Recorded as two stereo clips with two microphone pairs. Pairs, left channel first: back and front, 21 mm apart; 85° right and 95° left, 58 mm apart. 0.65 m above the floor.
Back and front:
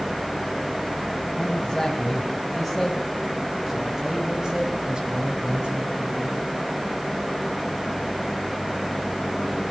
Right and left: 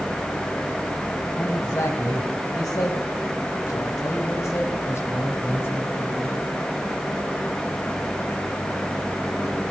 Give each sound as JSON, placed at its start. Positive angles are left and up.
{"t": 1.4, "sound": "a man speaking", "azimuth_deg": -105, "distance_m": 5.0}